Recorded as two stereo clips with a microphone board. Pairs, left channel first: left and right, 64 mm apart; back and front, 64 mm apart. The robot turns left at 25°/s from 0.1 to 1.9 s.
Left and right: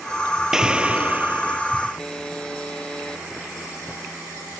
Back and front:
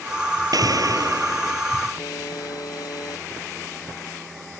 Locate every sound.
0.5 s an explosion: 10° right; by 1.6 s 40° right
2.0 s a buzzer: 165° left